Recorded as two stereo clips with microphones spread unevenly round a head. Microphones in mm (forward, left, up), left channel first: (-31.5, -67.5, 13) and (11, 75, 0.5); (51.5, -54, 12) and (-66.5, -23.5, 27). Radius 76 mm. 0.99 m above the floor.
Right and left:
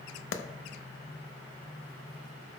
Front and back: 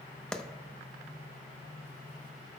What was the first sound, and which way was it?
A clap, 100° right.